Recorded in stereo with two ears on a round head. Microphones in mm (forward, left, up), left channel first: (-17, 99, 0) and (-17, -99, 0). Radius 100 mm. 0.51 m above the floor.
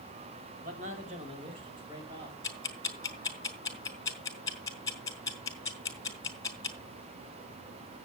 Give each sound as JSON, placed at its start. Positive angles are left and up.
{"t": 0.6, "sound": "a man speaking", "side_deg": -35, "distance_m": 3.0}
{"t": 2.4, "sound": "ticking", "side_deg": 15, "distance_m": 2.5}